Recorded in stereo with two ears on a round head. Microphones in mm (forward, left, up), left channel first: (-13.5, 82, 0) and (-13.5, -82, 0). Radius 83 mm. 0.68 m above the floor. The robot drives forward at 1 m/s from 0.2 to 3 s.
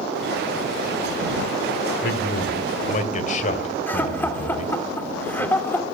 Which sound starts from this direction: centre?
Laughter, at 3.9 s.